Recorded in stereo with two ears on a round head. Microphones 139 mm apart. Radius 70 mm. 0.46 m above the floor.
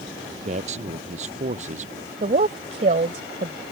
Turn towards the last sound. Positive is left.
turn(degrees=-45)  # may be behind; listen again after turning